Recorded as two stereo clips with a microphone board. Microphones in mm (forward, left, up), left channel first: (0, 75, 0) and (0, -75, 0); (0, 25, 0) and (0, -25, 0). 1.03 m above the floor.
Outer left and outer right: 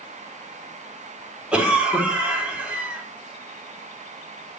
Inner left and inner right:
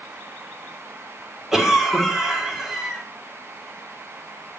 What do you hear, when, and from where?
1.5 s a cough: 5° right (ahead or behind), 3.5 m